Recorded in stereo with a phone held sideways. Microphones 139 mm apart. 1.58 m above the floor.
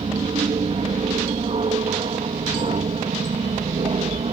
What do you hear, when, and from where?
0.0 s an aircraft: 45° right (ahead or behind); by 4.3 s 50° right (ahead or behind)